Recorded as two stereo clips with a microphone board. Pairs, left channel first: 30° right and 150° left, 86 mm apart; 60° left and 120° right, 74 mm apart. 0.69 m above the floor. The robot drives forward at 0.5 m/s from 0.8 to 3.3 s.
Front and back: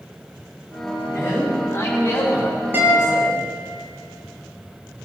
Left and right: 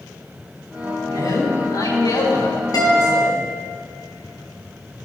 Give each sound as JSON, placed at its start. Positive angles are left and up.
{"t": 1.1, "sound": "a man speaking", "azimuth_deg": 30, "distance_m": 6.0}
{"t": 2.7, "sound": "a guitar", "azimuth_deg": 85, "distance_m": 6.0}